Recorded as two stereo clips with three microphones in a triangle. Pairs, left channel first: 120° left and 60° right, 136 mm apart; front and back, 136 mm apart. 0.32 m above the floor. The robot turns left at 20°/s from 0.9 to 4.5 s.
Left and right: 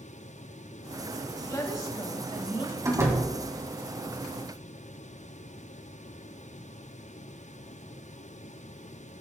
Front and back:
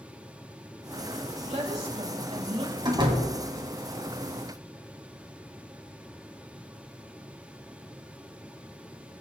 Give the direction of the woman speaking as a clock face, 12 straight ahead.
6 o'clock.